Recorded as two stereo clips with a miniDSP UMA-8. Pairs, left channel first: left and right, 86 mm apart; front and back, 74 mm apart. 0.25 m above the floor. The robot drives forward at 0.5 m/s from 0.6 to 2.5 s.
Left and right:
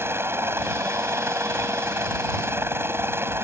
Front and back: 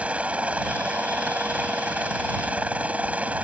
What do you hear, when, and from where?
0.0 s a helicopter: 120° right; by 3.4 s 125° right